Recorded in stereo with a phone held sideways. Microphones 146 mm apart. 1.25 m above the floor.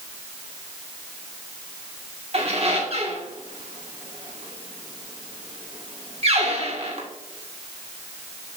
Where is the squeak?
50° right (ahead or behind), 1.9 m.